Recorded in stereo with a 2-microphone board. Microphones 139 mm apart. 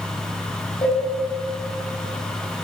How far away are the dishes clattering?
About 4 m.